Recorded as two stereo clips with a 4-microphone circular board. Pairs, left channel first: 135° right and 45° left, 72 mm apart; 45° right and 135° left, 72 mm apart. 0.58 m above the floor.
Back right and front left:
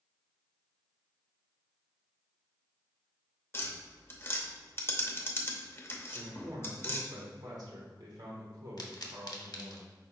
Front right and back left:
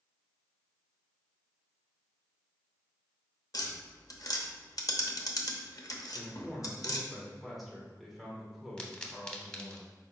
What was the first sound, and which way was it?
Tapping, 80° right.